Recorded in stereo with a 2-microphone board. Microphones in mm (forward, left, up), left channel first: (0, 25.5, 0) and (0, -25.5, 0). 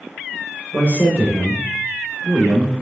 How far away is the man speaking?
About 1.3 m.